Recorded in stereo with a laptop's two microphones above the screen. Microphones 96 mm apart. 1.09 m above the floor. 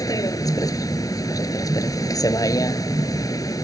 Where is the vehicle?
40° left (ahead or behind).